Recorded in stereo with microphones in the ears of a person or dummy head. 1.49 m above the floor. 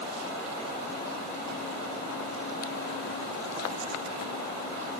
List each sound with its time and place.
Only background noise.